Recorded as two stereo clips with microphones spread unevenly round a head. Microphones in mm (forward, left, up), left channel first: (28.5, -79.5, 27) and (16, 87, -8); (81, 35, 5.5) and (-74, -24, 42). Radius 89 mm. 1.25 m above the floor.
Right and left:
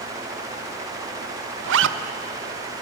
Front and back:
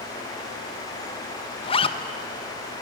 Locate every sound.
1.6 s a zipper: 80° left, 1.0 m